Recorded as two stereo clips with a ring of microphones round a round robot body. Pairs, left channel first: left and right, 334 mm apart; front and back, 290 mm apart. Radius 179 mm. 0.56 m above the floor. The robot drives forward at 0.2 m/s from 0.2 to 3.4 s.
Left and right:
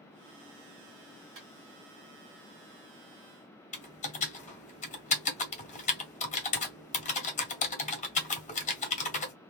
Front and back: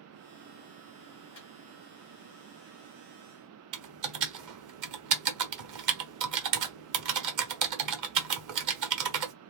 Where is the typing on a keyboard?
160° left, 0.9 m.